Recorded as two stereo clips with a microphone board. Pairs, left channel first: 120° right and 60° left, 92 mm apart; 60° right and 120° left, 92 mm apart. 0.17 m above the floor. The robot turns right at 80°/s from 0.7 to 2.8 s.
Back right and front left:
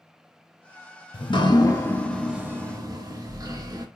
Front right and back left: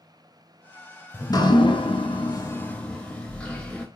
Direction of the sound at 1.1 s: 115° right.